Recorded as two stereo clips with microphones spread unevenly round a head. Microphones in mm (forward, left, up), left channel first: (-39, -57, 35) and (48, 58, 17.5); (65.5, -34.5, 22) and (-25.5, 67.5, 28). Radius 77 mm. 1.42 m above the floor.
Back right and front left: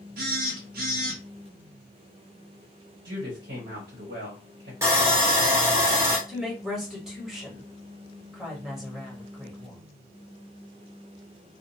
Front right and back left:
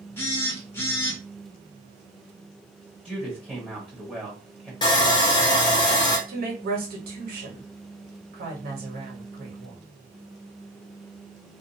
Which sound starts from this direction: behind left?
A woman speaking, at 6.3 s.